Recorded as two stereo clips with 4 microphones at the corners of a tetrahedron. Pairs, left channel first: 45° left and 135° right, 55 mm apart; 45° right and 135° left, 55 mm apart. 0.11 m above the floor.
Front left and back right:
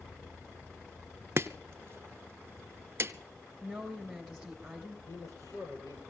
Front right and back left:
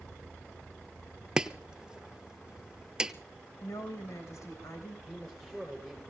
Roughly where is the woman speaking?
Ahead right.